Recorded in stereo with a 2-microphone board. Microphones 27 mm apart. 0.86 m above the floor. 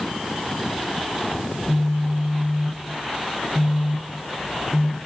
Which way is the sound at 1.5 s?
90° right.